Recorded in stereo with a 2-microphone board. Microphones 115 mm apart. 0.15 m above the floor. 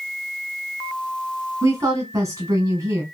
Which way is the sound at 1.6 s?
30° right (ahead or behind).